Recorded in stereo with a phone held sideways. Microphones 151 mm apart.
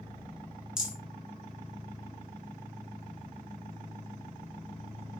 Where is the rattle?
5° right (ahead or behind), 1.1 m.